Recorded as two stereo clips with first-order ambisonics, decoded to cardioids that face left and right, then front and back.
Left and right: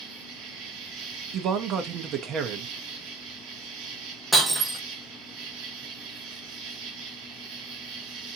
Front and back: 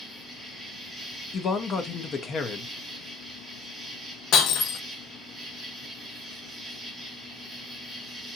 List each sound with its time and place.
0.0 s an insect: 95° right, 1.4 m
1.3 s a man speaking: 55° right, 0.6 m
4.3 s breaking glass: 10° right, 1.0 m